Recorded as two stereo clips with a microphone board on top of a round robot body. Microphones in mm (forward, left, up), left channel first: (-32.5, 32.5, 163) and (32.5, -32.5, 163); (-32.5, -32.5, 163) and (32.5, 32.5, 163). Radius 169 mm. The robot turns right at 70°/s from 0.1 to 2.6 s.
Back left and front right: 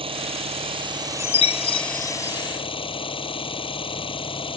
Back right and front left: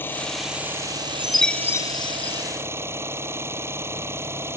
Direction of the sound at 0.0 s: 65° right.